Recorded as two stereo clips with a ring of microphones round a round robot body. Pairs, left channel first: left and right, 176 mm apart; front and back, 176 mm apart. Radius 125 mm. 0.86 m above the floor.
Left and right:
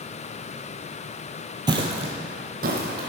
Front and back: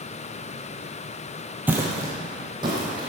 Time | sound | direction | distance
1.7 | footsteps | 115° right | 0.9 m